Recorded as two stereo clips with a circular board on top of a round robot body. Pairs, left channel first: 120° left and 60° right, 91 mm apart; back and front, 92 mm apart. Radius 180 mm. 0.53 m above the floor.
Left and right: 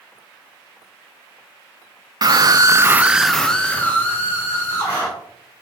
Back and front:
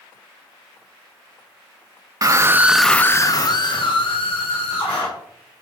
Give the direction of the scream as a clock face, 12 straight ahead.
1 o'clock.